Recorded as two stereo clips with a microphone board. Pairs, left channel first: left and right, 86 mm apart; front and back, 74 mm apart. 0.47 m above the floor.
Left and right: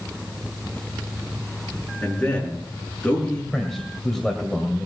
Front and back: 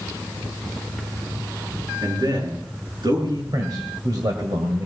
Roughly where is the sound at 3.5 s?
Behind.